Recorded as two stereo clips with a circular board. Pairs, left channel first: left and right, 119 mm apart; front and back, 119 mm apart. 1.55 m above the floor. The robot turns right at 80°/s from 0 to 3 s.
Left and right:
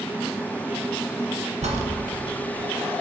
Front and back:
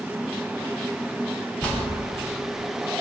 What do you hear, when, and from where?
1.6 s a bell: 80° right, 1.1 m; by 1.7 s 75° right, 1.1 m